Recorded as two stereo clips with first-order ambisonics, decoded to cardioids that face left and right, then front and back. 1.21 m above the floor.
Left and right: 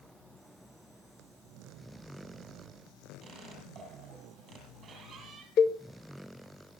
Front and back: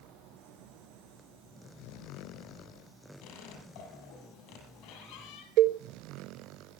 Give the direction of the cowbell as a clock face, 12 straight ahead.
7 o'clock.